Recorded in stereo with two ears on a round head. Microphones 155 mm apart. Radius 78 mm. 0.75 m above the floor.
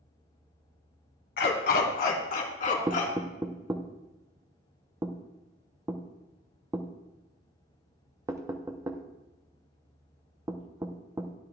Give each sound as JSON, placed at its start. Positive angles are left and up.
{"t": 1.4, "sound": "a dog barking", "side_deg": 70, "distance_m": 1.4}
{"t": 2.9, "sound": "knocking", "side_deg": -20, "distance_m": 0.6}